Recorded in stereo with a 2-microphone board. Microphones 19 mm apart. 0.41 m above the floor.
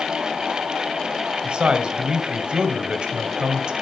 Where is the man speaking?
55° right (ahead or behind), 2.5 m.